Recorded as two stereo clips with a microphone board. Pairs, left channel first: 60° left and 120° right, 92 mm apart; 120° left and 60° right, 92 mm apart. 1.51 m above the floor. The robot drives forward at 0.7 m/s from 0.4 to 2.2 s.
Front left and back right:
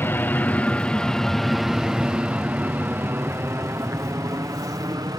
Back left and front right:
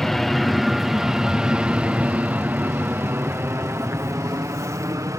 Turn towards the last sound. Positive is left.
turn(degrees=-100)